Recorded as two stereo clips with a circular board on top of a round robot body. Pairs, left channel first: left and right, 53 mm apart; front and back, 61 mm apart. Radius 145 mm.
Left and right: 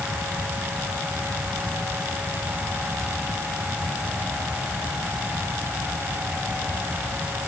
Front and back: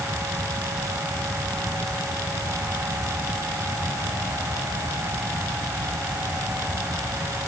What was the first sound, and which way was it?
Only background noise.